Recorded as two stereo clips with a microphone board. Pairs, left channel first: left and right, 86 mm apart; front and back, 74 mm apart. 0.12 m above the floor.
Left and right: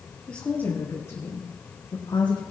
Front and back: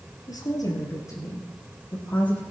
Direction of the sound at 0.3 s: 15° left.